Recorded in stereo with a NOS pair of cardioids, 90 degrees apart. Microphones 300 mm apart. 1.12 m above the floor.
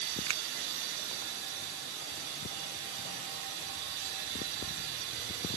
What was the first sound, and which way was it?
A finger snap, 55° right.